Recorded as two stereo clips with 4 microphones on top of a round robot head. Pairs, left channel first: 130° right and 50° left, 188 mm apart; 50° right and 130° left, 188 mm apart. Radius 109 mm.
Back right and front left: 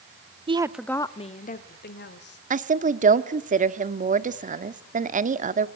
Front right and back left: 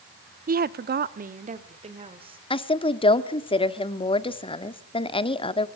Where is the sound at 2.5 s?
10° left, 1.4 m.